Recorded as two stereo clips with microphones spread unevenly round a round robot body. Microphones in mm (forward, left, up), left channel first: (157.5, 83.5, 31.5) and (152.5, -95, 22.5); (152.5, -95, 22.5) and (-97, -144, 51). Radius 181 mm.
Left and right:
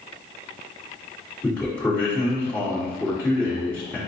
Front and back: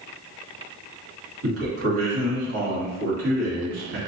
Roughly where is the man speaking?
Behind.